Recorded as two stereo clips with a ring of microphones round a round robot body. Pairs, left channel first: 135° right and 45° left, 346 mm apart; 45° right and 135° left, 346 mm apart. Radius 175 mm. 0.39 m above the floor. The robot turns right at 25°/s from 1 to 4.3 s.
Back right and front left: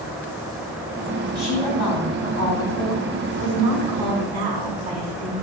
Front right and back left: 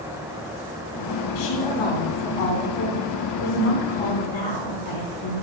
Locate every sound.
1.4 s a woman speaking: 45° right, 4 m; by 5.3 s 25° left, 4 m